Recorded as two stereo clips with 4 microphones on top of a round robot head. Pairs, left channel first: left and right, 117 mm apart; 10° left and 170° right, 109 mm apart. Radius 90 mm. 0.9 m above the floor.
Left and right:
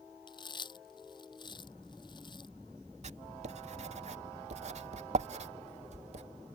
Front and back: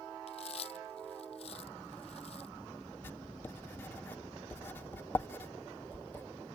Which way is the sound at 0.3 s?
40° left.